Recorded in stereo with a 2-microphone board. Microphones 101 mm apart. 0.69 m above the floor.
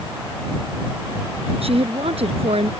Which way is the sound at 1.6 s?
75° right (ahead or behind).